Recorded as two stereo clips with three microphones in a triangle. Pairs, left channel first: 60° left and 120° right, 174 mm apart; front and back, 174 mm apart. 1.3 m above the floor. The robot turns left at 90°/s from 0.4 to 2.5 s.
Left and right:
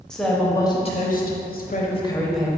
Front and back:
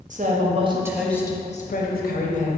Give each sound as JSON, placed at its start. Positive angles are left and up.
{"t": 0.1, "sound": "a woman speaking", "azimuth_deg": 145, "distance_m": 0.6}